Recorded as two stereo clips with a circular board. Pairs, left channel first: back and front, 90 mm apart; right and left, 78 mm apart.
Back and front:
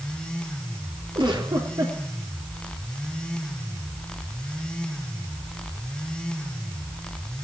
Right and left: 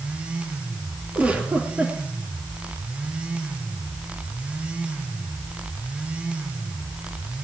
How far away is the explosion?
No explosion in this recording.